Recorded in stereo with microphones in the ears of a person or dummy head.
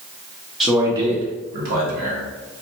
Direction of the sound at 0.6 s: 5° right (ahead or behind).